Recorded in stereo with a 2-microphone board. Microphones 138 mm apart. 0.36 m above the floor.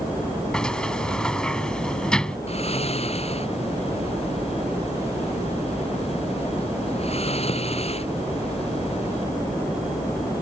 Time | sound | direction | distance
0.5 | a sliding door | 5° left (ahead or behind) | ?
2.5 | snoring | 45° left (ahead or behind) | ?